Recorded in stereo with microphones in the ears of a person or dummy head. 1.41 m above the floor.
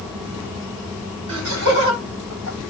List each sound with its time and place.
1.3 s laughter: 85° right, 9 m; by 2.6 s 80° right, 8.5 m